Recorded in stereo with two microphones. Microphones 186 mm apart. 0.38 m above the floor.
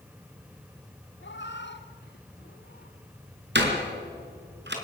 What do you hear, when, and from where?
1.2 s a cat meowing: 80° left, 1.8 m; by 3.0 s 50° left (ahead or behind), 2 m
3.5 s a door slam: 70° right (ahead or behind), 4.5 m